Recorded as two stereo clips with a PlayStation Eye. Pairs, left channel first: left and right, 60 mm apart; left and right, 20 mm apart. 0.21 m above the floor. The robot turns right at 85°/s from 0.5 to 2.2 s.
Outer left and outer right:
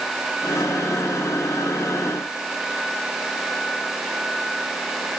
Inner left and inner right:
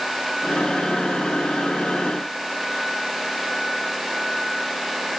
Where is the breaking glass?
I don't hear breaking glass.